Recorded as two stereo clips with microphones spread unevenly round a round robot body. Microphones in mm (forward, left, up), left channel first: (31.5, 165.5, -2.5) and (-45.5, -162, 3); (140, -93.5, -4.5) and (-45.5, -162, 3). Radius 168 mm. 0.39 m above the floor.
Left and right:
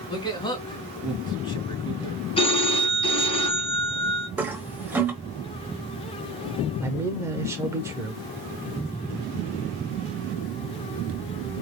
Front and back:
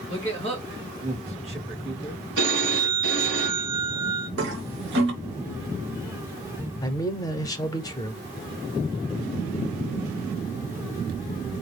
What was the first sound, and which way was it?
A man speaking, 155° left.